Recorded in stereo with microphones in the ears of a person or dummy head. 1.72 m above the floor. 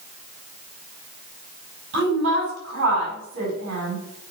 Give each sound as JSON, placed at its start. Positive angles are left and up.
{"t": 1.9, "sound": "a woman speaking", "side_deg": -75, "distance_m": 4.5}